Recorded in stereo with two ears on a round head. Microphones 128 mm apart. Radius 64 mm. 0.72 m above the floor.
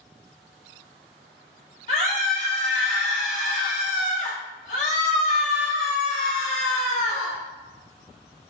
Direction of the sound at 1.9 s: 55° left (ahead or behind).